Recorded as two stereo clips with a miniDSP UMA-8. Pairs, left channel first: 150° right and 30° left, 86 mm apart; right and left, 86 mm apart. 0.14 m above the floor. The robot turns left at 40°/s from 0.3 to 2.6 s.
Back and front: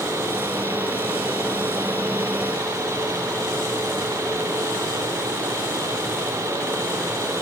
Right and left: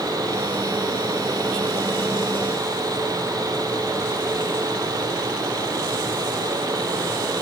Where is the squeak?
No squeak in this recording.